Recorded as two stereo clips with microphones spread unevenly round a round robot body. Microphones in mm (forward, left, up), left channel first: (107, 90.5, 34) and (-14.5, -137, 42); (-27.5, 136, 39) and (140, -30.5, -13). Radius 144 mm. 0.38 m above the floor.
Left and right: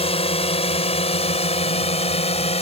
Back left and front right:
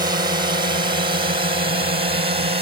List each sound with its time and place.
0.0 s a drone: 5° left; by 2.6 s straight ahead